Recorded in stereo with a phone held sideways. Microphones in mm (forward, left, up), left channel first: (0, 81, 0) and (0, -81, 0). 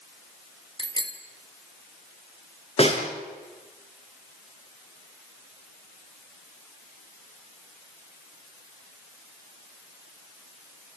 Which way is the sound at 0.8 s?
30° right (ahead or behind).